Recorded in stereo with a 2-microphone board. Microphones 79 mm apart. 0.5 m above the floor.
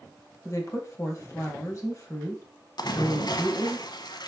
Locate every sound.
0.5 s a woman speaking: 40° left (ahead or behind), 2.5 m
2.8 s a splash: 60° left (ahead or behind), 1.0 m